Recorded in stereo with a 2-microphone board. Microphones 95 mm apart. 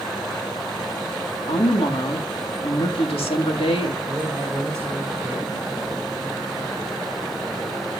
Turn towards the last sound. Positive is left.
turn(degrees=-30)  # may be behind; listen again after turning